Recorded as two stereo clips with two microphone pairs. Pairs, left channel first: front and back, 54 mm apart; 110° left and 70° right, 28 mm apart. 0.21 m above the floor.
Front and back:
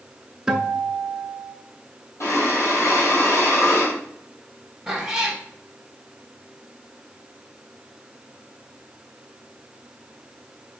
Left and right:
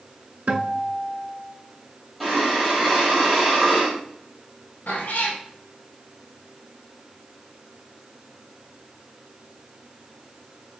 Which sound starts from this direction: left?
A cat meowing, at 4.9 s.